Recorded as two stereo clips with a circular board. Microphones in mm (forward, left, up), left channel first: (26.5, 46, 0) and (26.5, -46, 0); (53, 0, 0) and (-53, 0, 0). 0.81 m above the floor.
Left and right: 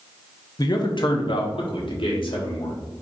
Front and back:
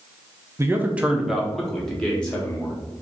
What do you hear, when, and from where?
0.6 s a man speaking: 120° left, 0.7 m; by 2.8 s 75° left, 1.9 m